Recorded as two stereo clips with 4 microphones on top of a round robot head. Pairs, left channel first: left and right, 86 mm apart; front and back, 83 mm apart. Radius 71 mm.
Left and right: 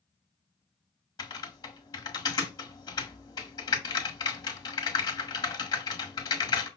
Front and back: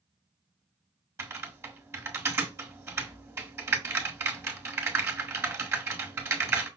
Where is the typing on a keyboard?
125° left, 1.7 m.